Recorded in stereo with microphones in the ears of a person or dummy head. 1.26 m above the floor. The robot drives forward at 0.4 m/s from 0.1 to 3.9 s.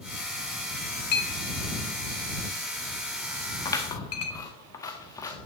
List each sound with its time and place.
1.1 s a clink: 55° left (ahead or behind), 2 m; by 4.4 s 80° left, 1.6 m
3.6 s scissors: 20° left (ahead or behind), 1.3 m